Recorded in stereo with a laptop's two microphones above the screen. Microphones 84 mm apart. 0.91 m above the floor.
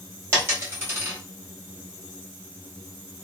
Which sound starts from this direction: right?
A dropped coin, at 0.3 s.